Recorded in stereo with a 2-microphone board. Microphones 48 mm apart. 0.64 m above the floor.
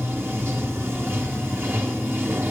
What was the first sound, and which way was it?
Running water, 55° right (ahead or behind).